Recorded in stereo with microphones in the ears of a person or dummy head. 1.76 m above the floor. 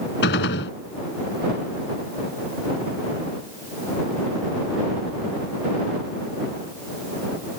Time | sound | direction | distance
0.2 | a gunshot | 60° left (ahead or behind) | ?